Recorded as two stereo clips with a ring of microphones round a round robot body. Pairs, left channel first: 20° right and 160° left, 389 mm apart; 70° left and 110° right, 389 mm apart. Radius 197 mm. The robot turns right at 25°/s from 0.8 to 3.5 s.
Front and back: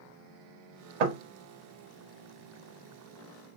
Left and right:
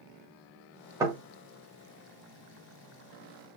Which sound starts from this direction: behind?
Knocking, at 1.0 s.